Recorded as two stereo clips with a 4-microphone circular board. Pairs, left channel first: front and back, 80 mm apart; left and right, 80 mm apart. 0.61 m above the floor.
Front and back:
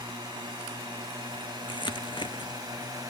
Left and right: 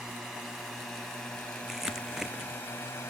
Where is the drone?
170° right; by 3.1 s 145° left.